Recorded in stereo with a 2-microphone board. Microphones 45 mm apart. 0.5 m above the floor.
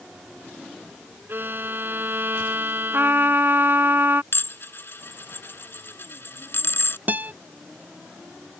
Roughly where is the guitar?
Right.